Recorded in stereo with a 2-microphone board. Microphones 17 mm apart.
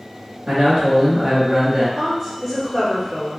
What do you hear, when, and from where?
0.5 s a man speaking: 35° right (ahead or behind), 1.3 m
2.0 s a woman speaking: 30° right (ahead or behind), 1.5 m